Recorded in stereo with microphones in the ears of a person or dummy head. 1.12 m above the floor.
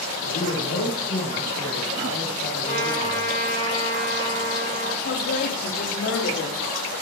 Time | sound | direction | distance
0.2 | a man speaking | 80° left | 4 m
2.6 | a trumpet | 35° left (ahead or behind) | 3.5 m
5.0 | a woman speaking | 65° left (ahead or behind) | 2.5 m